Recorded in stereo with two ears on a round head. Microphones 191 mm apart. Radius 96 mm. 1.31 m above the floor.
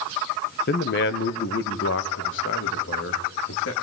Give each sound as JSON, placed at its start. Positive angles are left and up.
{"t": 0.7, "sound": "a man speaking", "side_deg": 50, "distance_m": 1.0}